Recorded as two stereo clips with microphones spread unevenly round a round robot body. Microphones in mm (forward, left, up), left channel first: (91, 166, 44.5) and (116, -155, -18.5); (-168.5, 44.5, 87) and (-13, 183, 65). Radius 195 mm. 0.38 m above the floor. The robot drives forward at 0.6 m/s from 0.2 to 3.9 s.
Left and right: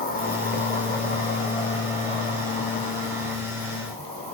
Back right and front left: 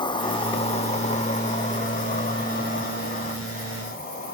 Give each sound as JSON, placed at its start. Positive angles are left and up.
{"t": 0.0, "sound": "an insect", "azimuth_deg": 160, "distance_m": 1.3}